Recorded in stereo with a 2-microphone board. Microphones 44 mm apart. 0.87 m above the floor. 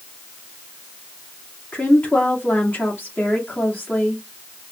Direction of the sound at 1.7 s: 45° left (ahead or behind).